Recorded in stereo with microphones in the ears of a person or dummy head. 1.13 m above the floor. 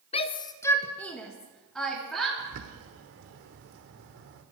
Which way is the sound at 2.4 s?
75° right (ahead or behind).